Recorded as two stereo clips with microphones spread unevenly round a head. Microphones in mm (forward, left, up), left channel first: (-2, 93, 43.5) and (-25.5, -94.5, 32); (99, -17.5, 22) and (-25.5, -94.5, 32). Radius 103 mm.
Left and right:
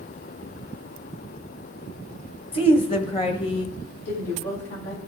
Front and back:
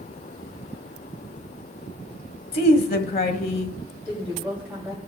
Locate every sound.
2.5 s a woman speaking: 20° left, 1.6 m
4.0 s a woman speaking: 115° left, 7.5 m